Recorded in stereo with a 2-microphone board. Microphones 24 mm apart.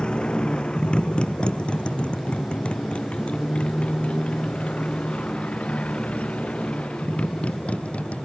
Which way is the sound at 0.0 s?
40° left (ahead or behind).